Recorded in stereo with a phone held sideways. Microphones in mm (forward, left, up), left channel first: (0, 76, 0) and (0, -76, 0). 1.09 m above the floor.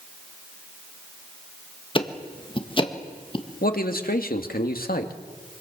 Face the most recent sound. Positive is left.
turn(degrees=75)  # may be behind; listen again after turning